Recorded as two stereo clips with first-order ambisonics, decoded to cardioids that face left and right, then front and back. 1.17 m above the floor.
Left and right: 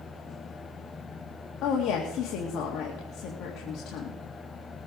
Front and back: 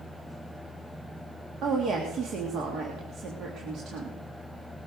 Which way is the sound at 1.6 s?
130° left.